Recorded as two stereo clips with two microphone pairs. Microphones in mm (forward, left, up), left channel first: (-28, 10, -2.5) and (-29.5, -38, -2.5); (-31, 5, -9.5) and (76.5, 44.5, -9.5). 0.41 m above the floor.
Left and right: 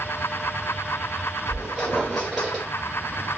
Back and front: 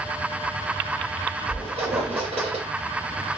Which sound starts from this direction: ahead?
A squeak, at 1.5 s.